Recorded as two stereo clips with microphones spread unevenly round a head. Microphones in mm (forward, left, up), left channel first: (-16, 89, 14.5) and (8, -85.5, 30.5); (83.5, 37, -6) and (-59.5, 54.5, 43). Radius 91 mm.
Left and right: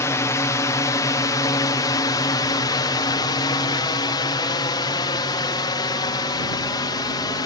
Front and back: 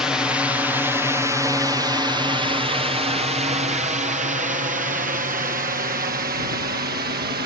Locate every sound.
0.0 s a drone: 50° left; by 7.5 s 160° left